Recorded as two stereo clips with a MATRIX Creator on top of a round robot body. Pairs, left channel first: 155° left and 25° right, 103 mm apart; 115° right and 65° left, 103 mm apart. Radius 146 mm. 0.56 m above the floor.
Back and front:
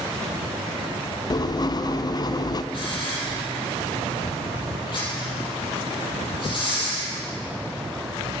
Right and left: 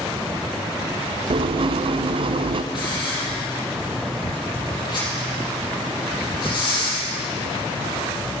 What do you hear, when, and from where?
1.3 s writing: 105° left, 0.6 m
2.7 s a hiss: 160° right, 5 m